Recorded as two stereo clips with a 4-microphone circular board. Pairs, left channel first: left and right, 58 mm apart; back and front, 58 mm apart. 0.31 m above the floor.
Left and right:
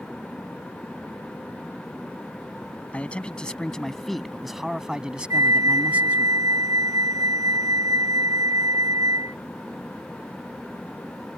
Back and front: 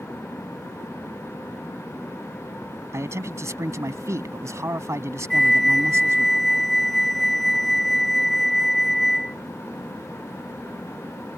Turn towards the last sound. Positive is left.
turn(degrees=-90)